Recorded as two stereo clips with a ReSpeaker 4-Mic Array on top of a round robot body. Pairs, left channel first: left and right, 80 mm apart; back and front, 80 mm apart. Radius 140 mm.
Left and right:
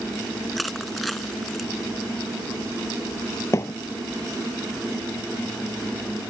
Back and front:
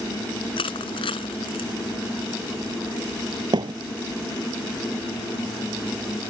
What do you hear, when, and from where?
0.6 s crushing: straight behind
3.5 s a thud: 35° left